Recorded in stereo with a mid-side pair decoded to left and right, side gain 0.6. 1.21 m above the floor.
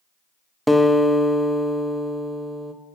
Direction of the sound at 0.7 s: Straight ahead.